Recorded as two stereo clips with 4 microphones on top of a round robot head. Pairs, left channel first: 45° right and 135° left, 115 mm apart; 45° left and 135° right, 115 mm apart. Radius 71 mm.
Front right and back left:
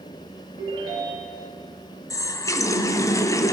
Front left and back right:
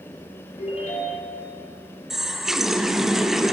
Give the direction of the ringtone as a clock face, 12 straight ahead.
9 o'clock.